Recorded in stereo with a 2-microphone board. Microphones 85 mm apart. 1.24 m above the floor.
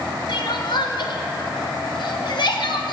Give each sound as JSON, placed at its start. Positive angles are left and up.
{"t": 0.3, "sound": "crying", "side_deg": 65, "distance_m": 0.9}